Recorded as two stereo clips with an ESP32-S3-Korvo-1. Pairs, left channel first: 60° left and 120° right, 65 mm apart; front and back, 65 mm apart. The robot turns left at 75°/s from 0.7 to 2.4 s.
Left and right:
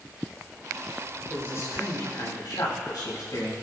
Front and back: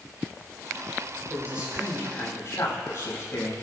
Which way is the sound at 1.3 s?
125° left.